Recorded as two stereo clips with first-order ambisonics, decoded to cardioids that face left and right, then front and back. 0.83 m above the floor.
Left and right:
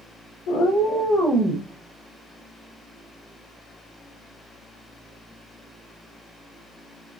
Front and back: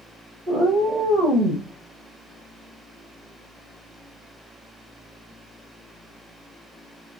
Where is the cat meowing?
100° left, 1.0 m; by 1.7 s 160° right, 1.1 m.